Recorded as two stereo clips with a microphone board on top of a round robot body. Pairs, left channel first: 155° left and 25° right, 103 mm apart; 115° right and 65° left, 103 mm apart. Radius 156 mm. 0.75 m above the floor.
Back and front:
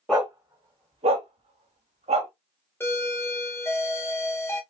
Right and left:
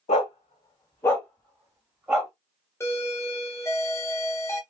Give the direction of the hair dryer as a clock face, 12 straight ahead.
I don't hear a hair dryer.